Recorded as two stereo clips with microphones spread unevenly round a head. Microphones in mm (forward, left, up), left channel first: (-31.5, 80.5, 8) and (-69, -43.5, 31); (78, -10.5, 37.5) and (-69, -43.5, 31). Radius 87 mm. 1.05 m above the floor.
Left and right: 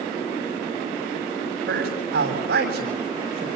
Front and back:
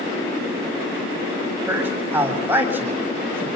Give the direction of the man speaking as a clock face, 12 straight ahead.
3 o'clock.